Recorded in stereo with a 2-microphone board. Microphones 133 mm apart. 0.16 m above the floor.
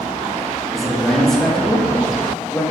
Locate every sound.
0.7 s a man speaking: centre (ahead or behind), 4.5 m; by 2.6 s 15° left (ahead or behind), 4 m